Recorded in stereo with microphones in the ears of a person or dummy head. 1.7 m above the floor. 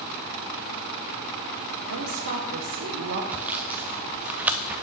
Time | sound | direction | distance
1.9 | a woman speaking | 80° right | 1.4 m
3.3 | sawing | 5° right (ahead or behind) | 0.6 m